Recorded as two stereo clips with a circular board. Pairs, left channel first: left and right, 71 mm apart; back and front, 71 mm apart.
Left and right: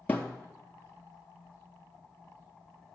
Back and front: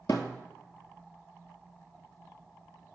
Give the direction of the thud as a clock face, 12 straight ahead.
7 o'clock.